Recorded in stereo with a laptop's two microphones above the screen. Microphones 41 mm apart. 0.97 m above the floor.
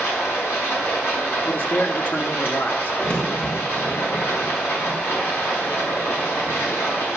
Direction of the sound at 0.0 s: 90° left.